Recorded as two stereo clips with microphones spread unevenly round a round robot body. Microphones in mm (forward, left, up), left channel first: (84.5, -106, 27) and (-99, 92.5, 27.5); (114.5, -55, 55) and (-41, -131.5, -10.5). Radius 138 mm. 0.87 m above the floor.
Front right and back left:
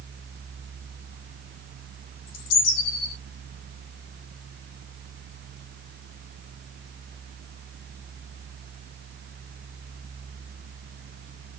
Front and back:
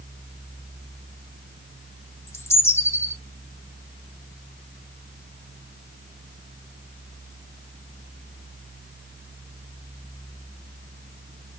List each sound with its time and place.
2.3 s a bird: 55° right, 1.6 m